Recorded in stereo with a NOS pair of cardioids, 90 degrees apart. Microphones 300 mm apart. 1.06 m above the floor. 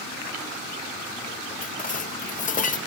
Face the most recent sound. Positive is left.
turn(degrees=25)